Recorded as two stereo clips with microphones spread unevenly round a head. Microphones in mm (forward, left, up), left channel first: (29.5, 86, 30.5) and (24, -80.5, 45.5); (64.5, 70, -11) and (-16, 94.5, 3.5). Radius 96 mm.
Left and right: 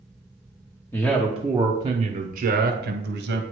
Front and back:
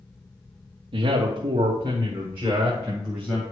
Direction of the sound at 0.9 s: 160° left.